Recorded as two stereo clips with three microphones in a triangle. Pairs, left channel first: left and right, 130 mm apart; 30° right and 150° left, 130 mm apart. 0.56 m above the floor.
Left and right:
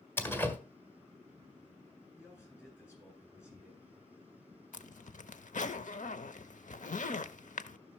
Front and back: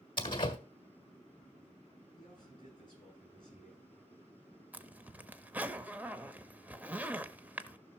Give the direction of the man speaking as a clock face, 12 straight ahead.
11 o'clock.